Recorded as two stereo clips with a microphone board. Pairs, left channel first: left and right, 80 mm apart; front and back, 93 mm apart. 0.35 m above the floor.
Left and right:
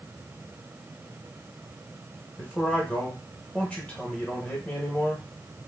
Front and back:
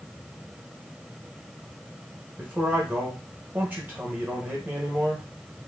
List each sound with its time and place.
2.4 s a man speaking: 140° left, 1.0 m